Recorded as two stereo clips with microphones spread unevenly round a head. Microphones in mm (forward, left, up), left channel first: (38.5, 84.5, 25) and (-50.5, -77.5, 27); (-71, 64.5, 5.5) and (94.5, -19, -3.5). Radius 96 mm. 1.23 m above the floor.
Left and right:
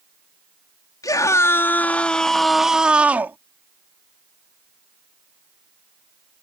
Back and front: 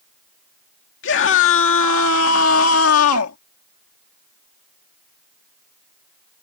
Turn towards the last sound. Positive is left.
turn(degrees=160)